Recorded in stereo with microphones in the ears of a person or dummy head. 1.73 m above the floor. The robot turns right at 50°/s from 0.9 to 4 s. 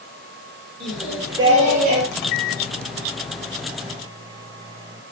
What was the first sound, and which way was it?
Singing, straight behind.